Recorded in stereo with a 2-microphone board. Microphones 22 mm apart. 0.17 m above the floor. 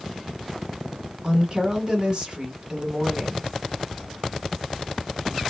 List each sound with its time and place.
1.2 s a woman speaking: 40° right (ahead or behind), 1.4 m